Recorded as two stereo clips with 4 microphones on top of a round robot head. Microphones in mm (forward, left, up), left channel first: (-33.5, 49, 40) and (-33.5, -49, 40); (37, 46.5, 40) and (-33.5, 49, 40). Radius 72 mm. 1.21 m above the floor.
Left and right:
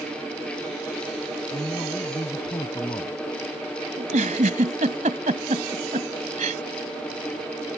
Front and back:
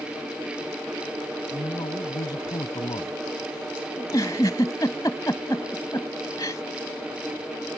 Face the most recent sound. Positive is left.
turn(degrees=-65)